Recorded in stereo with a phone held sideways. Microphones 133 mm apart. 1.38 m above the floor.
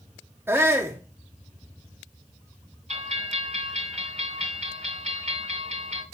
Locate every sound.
0.5 s a shout: 15° right (ahead or behind), 0.6 m
2.9 s a bell: 55° right (ahead or behind), 2 m